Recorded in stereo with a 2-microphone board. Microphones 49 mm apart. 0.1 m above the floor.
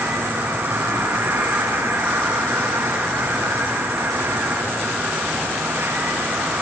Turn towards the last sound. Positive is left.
turn(degrees=-60)  # may be behind; listen again after turning